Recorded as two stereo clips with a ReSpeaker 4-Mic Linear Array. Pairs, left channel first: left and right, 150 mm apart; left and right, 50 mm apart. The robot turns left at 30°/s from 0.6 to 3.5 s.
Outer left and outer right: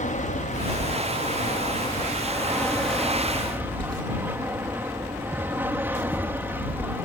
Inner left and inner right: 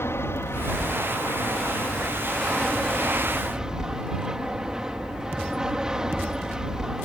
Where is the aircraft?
70° left; by 7.0 s 15° right.